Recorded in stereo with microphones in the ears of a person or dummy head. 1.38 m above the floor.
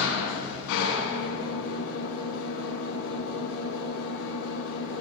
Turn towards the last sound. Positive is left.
turn(degrees=85)